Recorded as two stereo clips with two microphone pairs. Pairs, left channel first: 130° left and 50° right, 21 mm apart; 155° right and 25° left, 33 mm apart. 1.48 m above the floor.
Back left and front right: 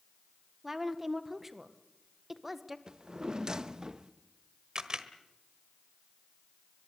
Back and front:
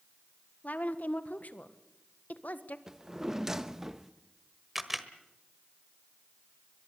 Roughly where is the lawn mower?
No lawn mower in this recording.